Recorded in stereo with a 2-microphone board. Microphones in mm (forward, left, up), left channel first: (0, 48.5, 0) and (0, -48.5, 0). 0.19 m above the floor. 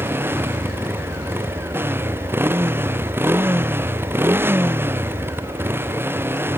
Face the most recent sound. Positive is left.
turn(degrees=-20)  # may be behind; listen again after turning